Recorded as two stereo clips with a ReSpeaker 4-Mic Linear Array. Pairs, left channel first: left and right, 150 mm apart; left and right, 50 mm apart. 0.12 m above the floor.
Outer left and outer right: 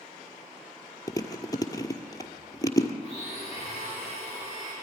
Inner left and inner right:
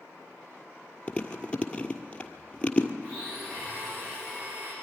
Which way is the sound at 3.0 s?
50° right (ahead or behind).